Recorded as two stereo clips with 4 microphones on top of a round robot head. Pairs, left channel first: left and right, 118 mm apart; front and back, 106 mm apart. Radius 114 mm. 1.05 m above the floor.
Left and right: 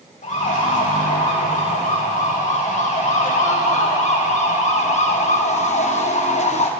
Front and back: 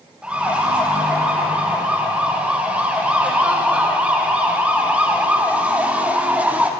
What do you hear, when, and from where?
0.2 s a siren: 100° left, 7 m; by 6.7 s 105° left, 3 m